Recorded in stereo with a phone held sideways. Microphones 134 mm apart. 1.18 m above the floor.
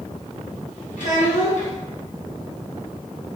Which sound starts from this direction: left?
A child speaking, at 1.0 s.